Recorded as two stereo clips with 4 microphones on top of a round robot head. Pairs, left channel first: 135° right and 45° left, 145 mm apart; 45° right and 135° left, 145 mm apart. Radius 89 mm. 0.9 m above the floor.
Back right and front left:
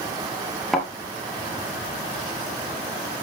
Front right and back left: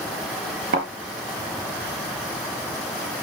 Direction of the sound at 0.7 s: 140° left.